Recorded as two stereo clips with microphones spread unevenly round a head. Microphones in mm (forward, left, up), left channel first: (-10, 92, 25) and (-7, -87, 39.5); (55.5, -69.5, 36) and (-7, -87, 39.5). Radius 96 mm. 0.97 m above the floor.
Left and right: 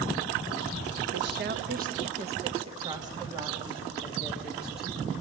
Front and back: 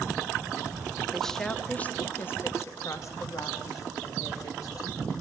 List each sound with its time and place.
1.1 s a woman speaking: 70° right, 1.4 m; by 5.1 s straight ahead, 3 m